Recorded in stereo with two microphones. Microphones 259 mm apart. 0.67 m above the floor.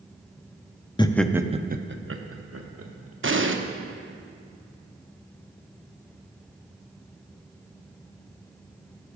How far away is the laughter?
About 0.6 m.